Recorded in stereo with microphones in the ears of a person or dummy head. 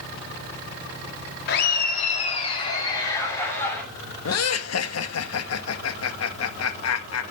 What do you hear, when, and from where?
1.5 s laughter: 60° left (ahead or behind), 2 m; by 3.8 s 15° left (ahead or behind), 3.5 m
4.2 s laughter: 70° left (ahead or behind), 1.7 m